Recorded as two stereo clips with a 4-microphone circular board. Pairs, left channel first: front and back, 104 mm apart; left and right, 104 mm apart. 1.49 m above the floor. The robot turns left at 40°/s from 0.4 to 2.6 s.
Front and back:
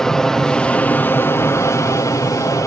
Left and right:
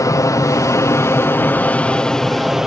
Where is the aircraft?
80° left; by 2.7 s 5° right.